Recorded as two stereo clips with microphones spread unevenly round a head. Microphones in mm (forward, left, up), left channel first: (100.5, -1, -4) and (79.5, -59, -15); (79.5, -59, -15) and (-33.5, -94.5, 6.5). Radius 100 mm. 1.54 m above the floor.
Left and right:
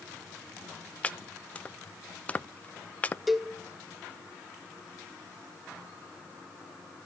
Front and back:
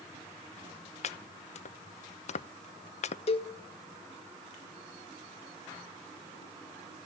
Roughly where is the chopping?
Ahead.